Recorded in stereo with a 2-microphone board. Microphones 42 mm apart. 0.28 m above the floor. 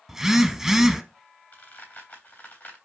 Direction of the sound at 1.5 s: 45° left (ahead or behind).